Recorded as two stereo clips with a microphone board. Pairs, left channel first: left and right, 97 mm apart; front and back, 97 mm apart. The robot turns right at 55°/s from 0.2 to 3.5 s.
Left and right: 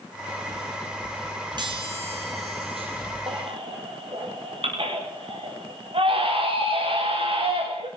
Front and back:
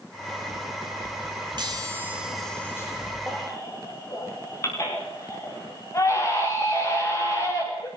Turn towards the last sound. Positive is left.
turn(degrees=-60)